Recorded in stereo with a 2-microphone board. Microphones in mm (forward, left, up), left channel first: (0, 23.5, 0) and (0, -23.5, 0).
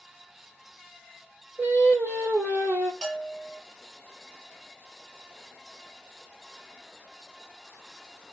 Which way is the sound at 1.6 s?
50° right (ahead or behind).